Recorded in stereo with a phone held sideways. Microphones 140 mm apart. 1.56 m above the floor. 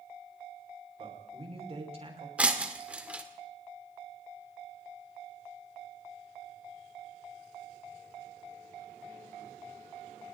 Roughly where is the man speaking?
Right.